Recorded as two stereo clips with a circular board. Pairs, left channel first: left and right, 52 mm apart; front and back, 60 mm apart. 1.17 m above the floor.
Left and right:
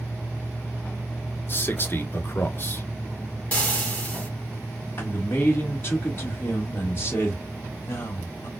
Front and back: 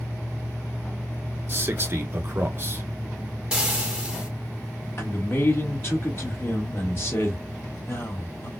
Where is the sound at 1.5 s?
135° left, 1.0 m.